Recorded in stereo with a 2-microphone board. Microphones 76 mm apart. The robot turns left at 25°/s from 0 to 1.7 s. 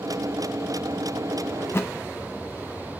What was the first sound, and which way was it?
A thud, 40° left (ahead or behind).